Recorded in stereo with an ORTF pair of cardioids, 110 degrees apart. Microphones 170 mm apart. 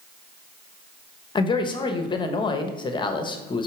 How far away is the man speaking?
About 1.0 m.